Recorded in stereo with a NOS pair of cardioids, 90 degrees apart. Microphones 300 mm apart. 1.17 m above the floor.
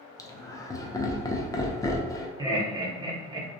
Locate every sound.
0.2 s laughter: 10° left, 0.5 m
2.4 s laughter: 15° right, 0.8 m